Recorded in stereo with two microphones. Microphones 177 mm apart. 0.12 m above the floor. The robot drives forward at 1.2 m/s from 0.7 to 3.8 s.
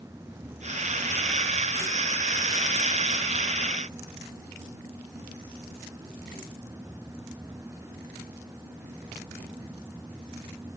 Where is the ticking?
No ticking in this recording.